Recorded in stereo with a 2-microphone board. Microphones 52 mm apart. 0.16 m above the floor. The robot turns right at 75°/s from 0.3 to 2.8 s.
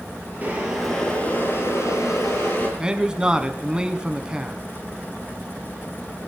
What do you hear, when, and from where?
0.4 s boiling: 35° right, 3 m; by 2.7 s 140° left, 3 m
2.8 s a man speaking: 15° right (ahead or behind), 1.0 m